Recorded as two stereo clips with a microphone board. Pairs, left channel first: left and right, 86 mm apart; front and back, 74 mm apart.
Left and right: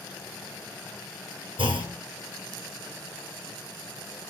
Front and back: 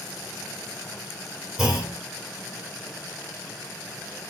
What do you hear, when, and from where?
1.6 s a clunk: 95° right, 5 m